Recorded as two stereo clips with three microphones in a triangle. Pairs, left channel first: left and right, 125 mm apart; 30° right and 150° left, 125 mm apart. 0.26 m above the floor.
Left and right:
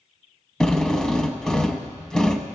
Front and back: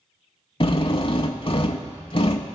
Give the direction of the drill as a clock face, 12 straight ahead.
12 o'clock.